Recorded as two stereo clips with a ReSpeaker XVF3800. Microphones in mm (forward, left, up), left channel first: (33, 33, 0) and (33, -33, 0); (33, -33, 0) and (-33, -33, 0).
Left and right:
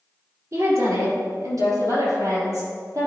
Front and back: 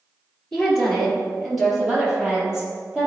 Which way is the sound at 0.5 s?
80° right.